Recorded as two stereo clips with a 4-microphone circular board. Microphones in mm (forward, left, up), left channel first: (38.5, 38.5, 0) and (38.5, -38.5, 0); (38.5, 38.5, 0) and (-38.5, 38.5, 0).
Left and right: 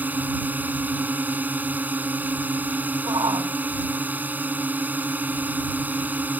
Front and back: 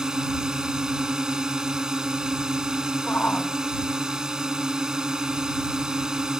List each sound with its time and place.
0.0 s a drone: 110° right
3.1 s a shout: 70° right